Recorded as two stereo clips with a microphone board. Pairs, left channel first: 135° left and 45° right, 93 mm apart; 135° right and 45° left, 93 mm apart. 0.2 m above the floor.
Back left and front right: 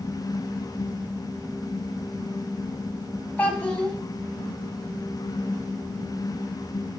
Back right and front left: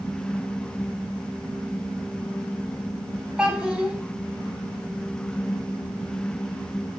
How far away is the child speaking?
About 0.5 m.